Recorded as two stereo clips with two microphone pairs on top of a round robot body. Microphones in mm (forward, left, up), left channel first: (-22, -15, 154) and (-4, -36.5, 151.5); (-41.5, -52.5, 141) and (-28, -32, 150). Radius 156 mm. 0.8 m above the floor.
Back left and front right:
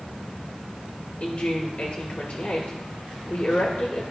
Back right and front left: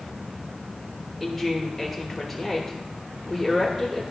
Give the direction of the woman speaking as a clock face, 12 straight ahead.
6 o'clock.